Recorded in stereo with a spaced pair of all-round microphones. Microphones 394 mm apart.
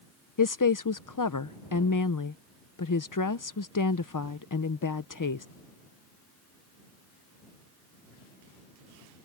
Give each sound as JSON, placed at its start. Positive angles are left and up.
{"t": 0.4, "sound": "a woman speaking", "side_deg": 50}